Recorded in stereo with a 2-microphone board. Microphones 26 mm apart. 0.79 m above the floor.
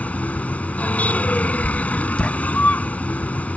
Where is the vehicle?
75° left (ahead or behind).